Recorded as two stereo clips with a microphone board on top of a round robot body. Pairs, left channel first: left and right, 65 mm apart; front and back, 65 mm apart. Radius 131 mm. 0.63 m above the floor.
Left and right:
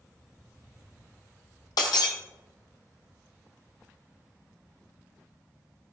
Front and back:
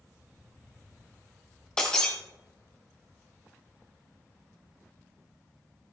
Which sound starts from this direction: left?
Breaking glass, at 1.8 s.